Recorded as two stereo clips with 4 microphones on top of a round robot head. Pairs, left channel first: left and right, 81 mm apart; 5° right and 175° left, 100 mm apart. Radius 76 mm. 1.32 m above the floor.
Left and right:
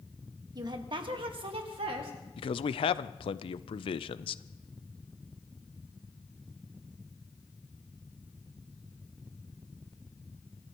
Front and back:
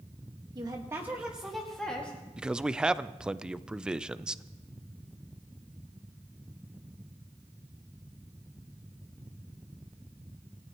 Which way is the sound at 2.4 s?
95° left.